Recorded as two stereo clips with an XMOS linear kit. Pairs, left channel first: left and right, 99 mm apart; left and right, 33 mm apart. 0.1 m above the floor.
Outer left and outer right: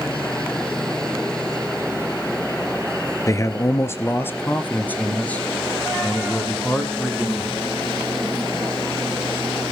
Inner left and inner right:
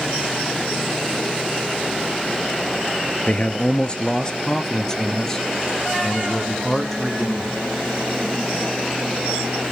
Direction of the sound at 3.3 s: 30° left (ahead or behind).